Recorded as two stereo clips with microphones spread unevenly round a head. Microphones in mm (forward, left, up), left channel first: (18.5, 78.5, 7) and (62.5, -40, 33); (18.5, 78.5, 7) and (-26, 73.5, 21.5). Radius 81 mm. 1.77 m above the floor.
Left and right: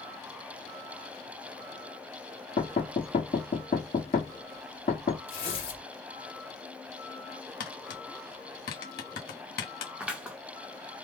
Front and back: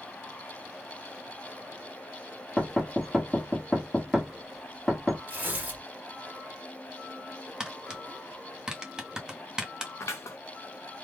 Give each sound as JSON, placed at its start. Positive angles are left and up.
{"t": 2.6, "sound": "knocking", "azimuth_deg": 120, "distance_m": 1.1}
{"t": 5.3, "sound": "tearing paper", "azimuth_deg": 145, "distance_m": 1.7}
{"t": 7.6, "sound": "tapping", "azimuth_deg": 115, "distance_m": 0.9}
{"t": 10.0, "sound": "scissors", "azimuth_deg": 5, "distance_m": 0.8}